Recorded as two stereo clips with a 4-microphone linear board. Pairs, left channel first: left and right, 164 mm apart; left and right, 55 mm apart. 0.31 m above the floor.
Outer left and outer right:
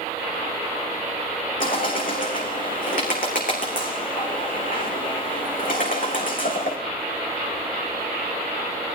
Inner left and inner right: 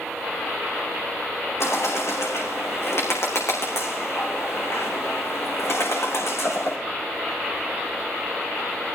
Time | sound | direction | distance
1.6 | a bird | 65° left (ahead or behind) | 5 m